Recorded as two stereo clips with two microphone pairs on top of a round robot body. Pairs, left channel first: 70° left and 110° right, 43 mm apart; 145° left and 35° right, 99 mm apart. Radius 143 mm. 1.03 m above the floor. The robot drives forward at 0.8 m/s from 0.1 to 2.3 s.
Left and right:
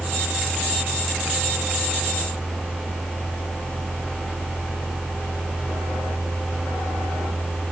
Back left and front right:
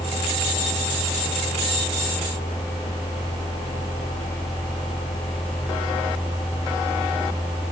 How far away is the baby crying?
I don't hear a baby crying.